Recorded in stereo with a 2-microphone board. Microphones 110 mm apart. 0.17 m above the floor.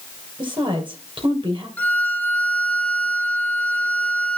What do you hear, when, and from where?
0.4 s a woman speaking: 45° right (ahead or behind), 4.5 m
1.8 s a violin: 15° left (ahead or behind), 1.2 m